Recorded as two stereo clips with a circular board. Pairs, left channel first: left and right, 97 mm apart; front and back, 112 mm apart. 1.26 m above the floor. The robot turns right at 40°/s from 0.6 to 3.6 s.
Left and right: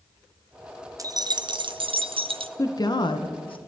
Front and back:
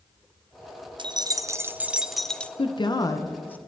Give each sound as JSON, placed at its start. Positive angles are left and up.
{"t": 1.0, "sound": "keys jangling", "azimuth_deg": -140, "distance_m": 0.5}
{"t": 2.6, "sound": "a woman speaking", "azimuth_deg": 35, "distance_m": 0.7}